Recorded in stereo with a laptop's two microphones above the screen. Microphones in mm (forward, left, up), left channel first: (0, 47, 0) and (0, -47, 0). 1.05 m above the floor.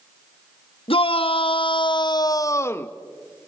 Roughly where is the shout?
Left.